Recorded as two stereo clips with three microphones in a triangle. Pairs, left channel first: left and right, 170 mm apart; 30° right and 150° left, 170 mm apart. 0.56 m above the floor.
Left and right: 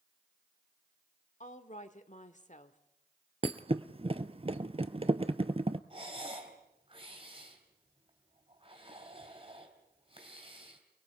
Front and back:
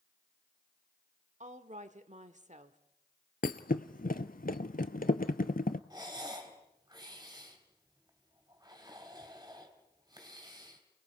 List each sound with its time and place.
1.4 s a woman speaking: 120° left, 1.4 m
3.4 s a thud: 40° right, 0.8 m
5.9 s breathing: 145° right, 3.5 m